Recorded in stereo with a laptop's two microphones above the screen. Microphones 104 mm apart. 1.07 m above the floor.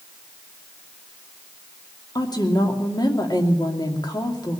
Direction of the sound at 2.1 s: 45° left (ahead or behind).